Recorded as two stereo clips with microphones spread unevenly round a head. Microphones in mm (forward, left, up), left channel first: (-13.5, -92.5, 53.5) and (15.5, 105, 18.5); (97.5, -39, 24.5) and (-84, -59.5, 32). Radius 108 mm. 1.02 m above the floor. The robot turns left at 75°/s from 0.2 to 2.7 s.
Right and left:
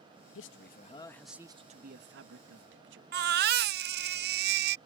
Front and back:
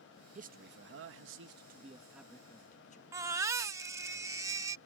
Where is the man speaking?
120° right; by 3.0 s 60° left.